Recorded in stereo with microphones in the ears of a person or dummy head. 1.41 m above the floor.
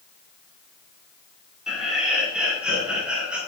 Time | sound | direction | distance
1.7 | laughter | centre (ahead or behind) | 5 m